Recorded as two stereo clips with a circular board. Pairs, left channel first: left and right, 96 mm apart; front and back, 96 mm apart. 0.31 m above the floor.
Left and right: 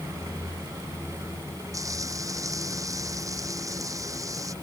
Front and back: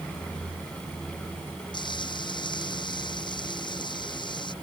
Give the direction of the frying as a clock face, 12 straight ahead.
1 o'clock.